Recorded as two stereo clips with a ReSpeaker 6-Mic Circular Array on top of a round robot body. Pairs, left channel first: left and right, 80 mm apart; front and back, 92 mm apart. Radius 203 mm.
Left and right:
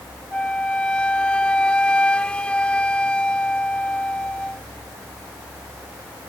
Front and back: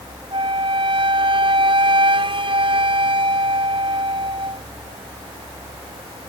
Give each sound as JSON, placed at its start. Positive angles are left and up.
{"t": 0.3, "sound": "a flute", "azimuth_deg": 165}